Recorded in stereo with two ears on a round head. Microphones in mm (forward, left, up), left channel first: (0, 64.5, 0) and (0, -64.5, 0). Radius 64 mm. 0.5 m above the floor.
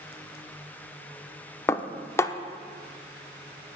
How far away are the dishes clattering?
About 0.6 m.